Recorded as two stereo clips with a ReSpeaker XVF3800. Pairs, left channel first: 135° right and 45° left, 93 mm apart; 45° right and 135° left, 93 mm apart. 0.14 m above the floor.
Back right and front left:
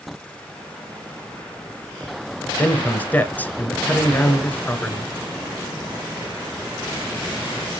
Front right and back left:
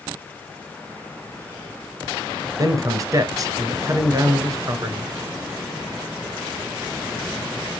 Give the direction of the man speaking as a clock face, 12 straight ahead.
7 o'clock.